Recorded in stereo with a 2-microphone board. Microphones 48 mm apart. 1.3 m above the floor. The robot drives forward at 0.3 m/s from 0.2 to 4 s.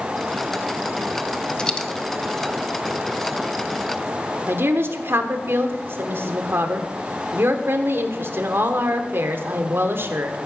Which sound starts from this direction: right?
A woman speaking, at 4.5 s.